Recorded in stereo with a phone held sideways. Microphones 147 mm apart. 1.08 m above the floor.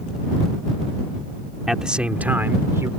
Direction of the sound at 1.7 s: 5° right (ahead or behind).